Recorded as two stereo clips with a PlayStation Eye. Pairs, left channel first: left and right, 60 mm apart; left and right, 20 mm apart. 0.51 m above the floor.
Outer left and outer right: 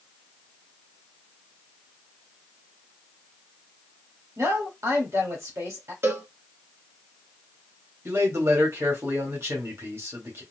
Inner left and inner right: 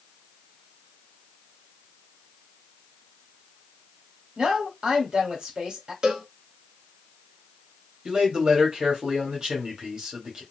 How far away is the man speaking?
About 1.8 m.